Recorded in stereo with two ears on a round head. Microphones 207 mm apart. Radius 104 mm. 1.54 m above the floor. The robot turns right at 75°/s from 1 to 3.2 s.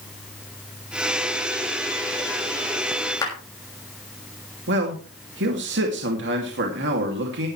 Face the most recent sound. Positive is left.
turn(degrees=-50)  # may be behind; listen again after turning